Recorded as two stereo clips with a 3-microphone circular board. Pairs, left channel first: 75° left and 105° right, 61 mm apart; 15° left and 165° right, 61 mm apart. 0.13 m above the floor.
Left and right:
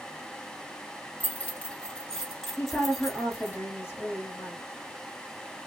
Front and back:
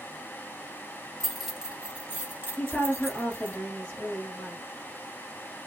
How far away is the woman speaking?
About 1.3 m.